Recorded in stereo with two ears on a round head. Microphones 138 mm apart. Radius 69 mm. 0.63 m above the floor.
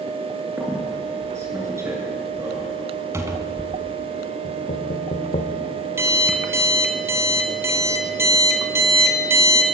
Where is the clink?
I don't hear a clink.